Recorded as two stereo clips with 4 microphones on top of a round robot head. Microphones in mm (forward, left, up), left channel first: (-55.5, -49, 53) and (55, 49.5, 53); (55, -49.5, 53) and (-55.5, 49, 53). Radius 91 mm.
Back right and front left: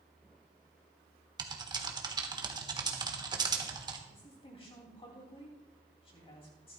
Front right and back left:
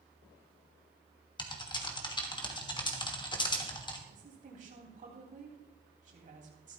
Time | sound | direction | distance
1.4 | typing on a keyboard | 5° right | 1.4 m
4.1 | a woman speaking | 170° left | 2.5 m